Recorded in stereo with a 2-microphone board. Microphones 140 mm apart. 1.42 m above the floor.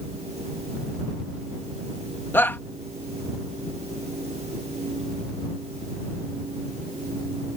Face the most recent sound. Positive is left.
turn(degrees=15)  # may be behind; listen again after turning